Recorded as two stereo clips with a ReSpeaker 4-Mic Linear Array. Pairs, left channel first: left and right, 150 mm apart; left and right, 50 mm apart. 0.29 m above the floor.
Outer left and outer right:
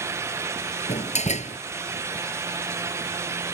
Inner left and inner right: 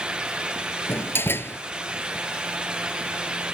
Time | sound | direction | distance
0.9 | a door slam | 50° left (ahead or behind) | ?